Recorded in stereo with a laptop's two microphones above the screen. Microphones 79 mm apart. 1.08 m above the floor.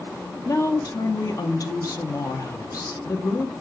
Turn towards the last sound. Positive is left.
turn(degrees=55)  # may be behind; listen again after turning